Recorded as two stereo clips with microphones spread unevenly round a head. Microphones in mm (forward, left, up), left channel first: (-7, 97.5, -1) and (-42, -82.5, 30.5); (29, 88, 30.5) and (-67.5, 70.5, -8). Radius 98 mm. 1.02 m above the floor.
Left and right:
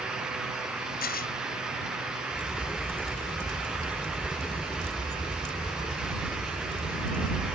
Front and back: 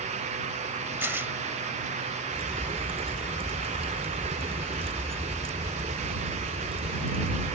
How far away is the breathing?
I don't hear breathing.